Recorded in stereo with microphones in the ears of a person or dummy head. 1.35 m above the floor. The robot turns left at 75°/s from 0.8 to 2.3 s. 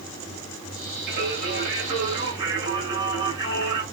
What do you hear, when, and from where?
1.1 s singing: 60° right, 1.1 m; by 3.8 s 155° right, 1.1 m